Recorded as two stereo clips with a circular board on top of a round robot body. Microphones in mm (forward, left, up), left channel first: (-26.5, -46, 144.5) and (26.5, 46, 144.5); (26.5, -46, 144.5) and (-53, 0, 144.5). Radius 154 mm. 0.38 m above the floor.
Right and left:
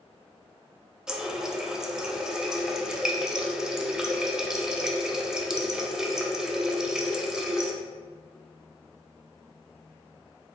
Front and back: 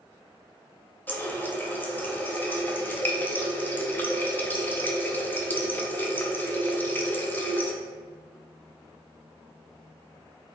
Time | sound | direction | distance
1.1 | a running tap | 10° right | 0.7 m